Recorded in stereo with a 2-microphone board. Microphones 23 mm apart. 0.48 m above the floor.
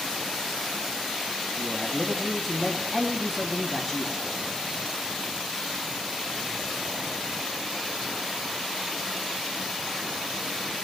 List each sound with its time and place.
1.6 s a man speaking: 10° right (ahead or behind), 2.5 m